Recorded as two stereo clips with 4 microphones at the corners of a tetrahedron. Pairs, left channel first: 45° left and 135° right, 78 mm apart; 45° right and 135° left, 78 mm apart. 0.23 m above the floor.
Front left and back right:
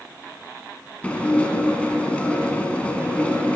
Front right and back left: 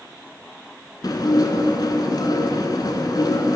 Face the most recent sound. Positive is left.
turn(degrees=-25)